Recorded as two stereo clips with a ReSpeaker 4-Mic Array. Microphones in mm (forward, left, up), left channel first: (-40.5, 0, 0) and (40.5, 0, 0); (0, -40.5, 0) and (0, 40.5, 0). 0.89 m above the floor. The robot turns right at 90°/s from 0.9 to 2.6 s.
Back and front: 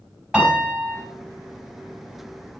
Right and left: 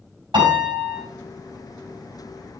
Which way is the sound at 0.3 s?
80° left.